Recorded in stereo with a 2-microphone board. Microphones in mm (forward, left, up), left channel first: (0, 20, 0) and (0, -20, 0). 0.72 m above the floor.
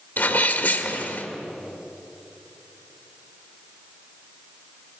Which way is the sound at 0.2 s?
60° left (ahead or behind).